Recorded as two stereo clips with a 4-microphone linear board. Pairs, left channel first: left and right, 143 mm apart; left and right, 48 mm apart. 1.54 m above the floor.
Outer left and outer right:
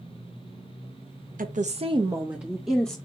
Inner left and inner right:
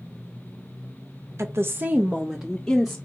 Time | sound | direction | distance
1.4 | a woman speaking | 70° right (ahead or behind) | 0.6 m